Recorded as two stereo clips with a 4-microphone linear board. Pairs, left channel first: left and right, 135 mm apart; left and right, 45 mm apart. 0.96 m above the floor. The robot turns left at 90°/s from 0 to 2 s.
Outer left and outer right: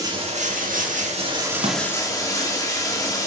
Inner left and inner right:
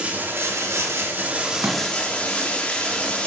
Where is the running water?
25° right, 1.5 m; by 3.3 s 155° left, 1.5 m.